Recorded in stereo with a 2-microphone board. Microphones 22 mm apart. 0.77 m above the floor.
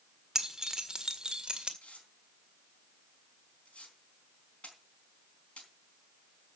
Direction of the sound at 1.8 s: 70° left (ahead or behind).